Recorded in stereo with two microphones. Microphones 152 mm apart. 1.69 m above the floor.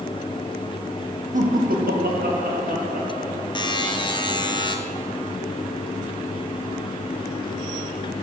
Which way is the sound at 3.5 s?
30° left (ahead or behind).